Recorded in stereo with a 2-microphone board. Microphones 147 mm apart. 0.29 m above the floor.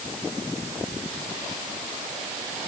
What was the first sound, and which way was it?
Only background noise.